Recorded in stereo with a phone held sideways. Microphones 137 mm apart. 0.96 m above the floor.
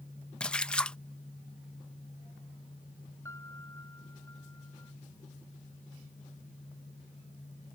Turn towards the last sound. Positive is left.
turn(degrees=20)  # may be behind; listen again after turning